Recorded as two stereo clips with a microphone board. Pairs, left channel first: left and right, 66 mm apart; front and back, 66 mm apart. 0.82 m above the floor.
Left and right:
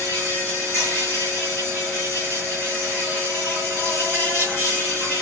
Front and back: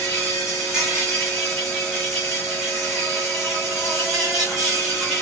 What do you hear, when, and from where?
0.0 s an insect: 100° left, 1.7 m